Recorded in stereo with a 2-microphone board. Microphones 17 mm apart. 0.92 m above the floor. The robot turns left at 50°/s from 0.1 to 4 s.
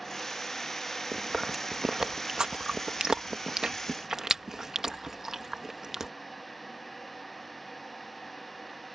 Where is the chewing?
Centre (ahead or behind); by 6.1 s 30° right (ahead or behind).